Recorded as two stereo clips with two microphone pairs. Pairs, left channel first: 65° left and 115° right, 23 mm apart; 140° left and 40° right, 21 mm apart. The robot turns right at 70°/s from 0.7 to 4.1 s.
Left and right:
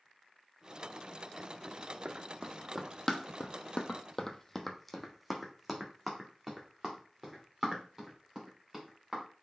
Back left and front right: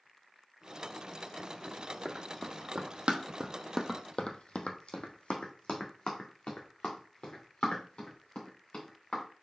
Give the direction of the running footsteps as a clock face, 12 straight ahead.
4 o'clock.